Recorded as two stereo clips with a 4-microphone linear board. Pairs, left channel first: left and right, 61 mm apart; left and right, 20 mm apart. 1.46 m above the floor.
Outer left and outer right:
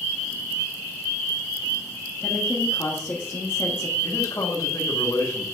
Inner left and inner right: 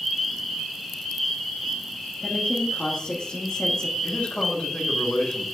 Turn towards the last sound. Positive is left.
turn(degrees=80)